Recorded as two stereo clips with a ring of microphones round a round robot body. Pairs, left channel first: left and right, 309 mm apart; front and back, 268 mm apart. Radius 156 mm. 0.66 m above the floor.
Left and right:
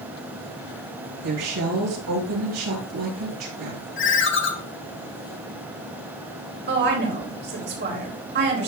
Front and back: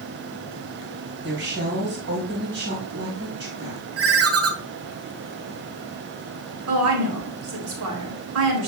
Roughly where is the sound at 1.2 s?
Behind right.